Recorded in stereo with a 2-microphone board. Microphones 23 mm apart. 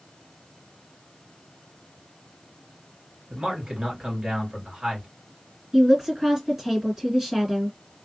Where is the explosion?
No explosion in this recording.